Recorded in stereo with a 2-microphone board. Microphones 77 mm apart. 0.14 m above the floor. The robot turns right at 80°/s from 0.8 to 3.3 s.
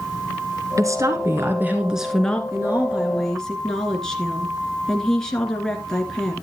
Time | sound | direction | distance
0.8 | a woman speaking | 105° right | 1.8 m
2.5 | a woman speaking | 55° right | 2 m